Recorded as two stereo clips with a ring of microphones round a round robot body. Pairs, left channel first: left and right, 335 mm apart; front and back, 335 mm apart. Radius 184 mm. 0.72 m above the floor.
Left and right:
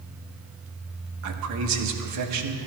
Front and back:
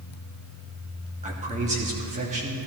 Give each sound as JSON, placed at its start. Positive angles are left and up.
{"t": 1.2, "sound": "a man speaking", "azimuth_deg": -115, "distance_m": 1.2}